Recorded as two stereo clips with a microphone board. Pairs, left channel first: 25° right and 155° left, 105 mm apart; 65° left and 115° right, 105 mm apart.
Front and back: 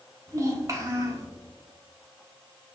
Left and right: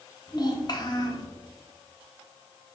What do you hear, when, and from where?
0.3 s a child speaking: 105° left, 1.1 m